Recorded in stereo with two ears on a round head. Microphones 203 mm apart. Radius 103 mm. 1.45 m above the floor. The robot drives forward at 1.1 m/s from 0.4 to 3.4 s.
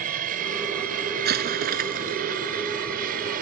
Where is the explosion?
45° right (ahead or behind); by 2.2 s 40° right (ahead or behind).